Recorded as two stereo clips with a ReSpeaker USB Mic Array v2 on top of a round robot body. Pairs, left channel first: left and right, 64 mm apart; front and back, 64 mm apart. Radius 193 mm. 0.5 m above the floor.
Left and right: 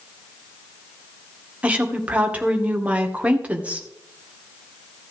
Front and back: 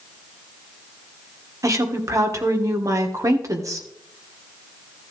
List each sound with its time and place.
1.6 s a woman speaking: 155° right, 2.5 m